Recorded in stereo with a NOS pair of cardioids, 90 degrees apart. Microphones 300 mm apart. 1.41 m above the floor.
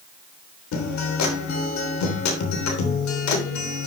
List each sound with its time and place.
0.7 s a guitar: 70° left, 3 m